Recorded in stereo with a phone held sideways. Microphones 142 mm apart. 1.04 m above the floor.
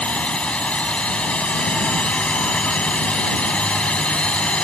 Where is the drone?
10° left (ahead or behind).